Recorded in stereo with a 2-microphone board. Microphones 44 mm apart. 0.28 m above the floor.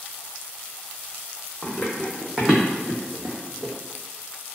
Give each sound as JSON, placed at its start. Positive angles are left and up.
{"t": 1.6, "sound": "running footsteps", "side_deg": 15, "distance_m": 0.8}